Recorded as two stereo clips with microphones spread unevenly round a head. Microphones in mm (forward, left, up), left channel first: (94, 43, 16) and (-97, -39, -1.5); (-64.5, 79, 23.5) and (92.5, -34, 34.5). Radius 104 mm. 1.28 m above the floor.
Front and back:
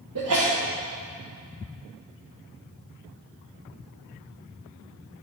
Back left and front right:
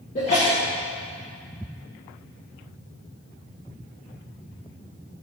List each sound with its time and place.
0.1 s a sneeze: 155° right, 1.3 m